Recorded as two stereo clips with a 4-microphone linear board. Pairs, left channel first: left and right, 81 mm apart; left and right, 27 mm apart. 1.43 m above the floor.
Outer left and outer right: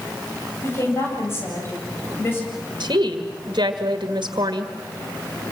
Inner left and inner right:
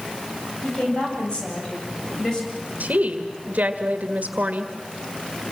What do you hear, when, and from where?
0.6 s a woman speaking: 35° left (ahead or behind), 8.5 m; by 2.4 s 30° left (ahead or behind), 8 m
2.8 s a woman speaking: 70° right (ahead or behind), 1.8 m